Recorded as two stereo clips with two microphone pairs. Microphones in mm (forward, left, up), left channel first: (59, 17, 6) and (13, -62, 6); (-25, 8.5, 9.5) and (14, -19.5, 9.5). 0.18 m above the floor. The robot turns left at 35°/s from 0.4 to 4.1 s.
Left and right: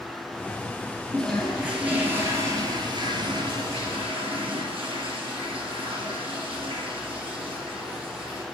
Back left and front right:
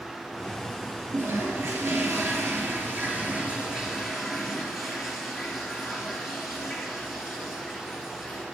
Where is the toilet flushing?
20° right, 3 m; by 8.4 s 125° right, 3 m.